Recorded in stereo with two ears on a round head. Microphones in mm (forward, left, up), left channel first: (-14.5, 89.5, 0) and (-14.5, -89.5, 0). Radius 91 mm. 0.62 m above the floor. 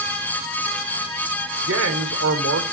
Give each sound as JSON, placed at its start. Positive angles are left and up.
{"t": 1.6, "sound": "a man speaking", "side_deg": -70, "distance_m": 1.8}